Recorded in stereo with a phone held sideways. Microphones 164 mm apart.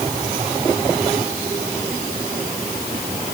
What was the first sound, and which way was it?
Only background noise.